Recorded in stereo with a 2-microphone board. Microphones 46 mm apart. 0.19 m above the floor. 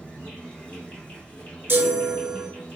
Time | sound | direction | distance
0.0 | an insect | 20° left (ahead or behind) | 2.0 m
1.7 | a chime | 55° right (ahead or behind) | 0.6 m